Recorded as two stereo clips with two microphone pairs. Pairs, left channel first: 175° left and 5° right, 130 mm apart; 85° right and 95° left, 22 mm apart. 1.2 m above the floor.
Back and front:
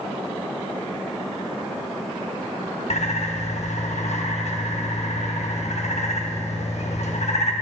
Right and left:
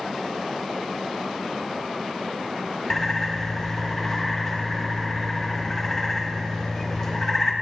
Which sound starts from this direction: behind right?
A bird, at 2.9 s.